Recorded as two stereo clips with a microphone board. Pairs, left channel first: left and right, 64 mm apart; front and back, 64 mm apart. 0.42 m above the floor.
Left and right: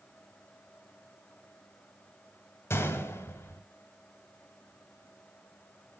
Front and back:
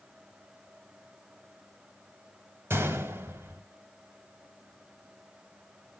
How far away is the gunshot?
About 1.4 m.